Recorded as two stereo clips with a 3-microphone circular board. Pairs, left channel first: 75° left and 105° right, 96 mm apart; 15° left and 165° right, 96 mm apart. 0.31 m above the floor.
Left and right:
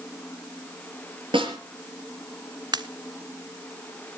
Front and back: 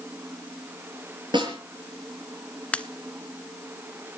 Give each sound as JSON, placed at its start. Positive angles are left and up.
{"t": 1.3, "sound": "a snare drum", "azimuth_deg": -130, "distance_m": 5.5}
{"t": 2.7, "sound": "a pop", "azimuth_deg": -60, "distance_m": 0.7}